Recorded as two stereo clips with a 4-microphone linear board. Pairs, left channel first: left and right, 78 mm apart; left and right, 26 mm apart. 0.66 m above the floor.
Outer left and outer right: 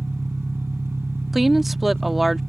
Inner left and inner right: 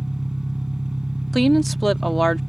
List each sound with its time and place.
0.0 s an engine running: 35° right (ahead or behind)
1.3 s a woman speaking: centre (ahead or behind)